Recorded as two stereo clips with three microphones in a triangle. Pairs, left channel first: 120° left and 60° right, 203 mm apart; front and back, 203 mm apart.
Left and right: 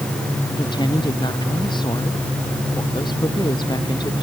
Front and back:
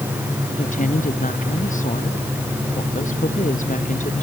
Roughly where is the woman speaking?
Ahead left.